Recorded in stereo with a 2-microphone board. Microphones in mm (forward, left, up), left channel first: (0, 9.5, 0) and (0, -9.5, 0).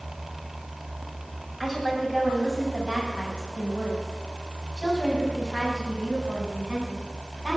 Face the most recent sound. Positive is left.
turn(degrees=-40)  # may be behind; listen again after turning